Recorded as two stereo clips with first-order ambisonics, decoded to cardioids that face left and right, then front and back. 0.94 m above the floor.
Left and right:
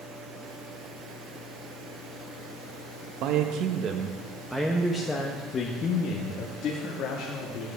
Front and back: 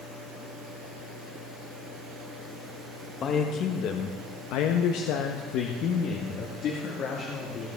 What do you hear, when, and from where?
3.2 s a man speaking: 60° right, 1.0 m; by 7.7 s 55° left, 2.0 m